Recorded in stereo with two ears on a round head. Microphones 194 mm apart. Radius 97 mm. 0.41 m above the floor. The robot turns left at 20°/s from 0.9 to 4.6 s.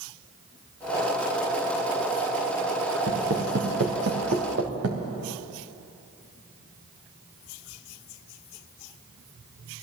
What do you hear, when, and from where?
3.1 s footsteps: 55° right (ahead or behind), 3.5 m; by 5.0 s 60° right (ahead or behind), 3 m